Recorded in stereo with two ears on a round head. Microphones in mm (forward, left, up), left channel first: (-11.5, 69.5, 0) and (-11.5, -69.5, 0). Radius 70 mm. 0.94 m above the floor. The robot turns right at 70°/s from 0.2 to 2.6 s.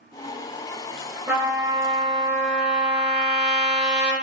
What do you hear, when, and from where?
1.3 s a trumpet: 165° right, 1.0 m; by 4.1 s 70° right, 1.0 m